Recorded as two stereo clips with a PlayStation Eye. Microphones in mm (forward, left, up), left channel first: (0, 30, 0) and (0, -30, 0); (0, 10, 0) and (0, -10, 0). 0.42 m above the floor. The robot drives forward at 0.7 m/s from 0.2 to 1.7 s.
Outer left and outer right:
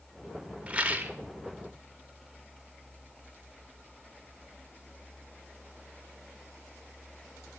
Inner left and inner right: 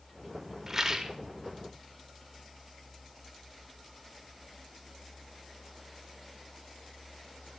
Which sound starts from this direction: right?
A rattle, at 0.7 s.